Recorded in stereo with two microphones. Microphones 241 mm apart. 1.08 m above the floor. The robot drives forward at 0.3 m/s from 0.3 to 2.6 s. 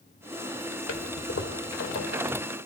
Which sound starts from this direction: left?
A toilet flushing, at 0.9 s.